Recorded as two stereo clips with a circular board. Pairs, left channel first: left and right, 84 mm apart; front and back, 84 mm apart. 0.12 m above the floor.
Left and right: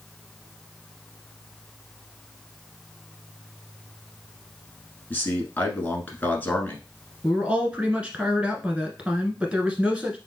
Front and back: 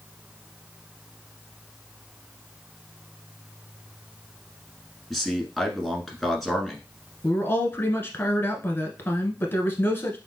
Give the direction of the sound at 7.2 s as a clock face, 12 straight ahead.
1 o'clock.